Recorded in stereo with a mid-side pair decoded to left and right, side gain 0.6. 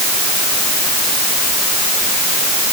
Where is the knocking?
No knocking in this recording.